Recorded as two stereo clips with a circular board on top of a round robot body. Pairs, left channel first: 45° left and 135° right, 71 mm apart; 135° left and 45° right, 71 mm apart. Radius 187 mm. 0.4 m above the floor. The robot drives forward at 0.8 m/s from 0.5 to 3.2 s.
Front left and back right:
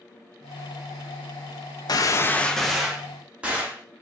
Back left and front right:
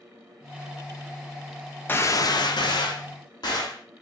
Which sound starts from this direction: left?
A gunshot, at 1.9 s.